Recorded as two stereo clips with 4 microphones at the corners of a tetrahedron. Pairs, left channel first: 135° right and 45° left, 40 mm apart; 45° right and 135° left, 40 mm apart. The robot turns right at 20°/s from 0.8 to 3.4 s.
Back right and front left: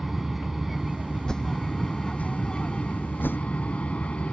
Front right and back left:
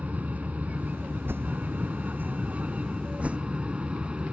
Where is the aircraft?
130° left; by 4.3 s straight behind.